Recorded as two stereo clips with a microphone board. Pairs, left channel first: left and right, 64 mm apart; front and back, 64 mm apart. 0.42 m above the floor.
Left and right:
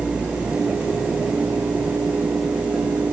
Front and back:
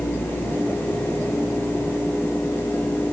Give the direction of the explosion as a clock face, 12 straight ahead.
No explosion in this recording.